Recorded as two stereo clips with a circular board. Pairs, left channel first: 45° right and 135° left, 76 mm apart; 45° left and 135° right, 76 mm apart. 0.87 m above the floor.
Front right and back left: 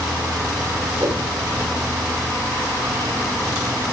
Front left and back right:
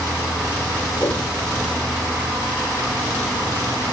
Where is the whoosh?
80° left, 4 m.